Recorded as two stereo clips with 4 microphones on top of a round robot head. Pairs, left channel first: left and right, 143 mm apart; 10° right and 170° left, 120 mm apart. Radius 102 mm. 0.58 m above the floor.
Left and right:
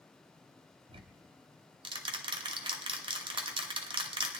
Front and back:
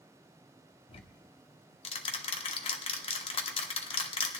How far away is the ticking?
About 1.1 m.